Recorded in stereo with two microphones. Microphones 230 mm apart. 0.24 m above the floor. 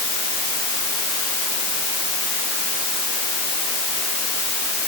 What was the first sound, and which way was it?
Only background noise.